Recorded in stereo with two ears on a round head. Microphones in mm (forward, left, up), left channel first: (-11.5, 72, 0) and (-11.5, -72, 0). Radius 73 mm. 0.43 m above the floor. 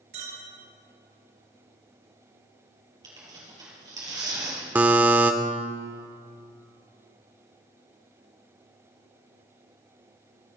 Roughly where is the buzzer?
Centre.